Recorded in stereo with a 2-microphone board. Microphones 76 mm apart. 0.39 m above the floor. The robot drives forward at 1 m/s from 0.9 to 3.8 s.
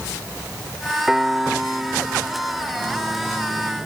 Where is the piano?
10° right (ahead or behind); by 3.1 s 5° right (ahead or behind).